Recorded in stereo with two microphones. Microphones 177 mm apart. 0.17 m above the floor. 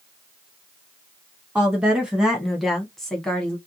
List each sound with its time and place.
1.6 s a woman speaking: 5° right (ahead or behind), 1.1 m; by 3.6 s 5° left (ahead or behind), 1.1 m